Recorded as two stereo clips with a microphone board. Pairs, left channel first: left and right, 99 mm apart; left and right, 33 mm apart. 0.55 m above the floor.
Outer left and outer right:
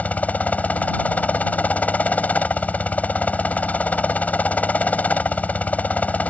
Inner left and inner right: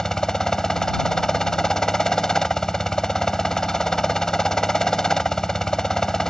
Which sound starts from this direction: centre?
A helicopter, at 0.0 s.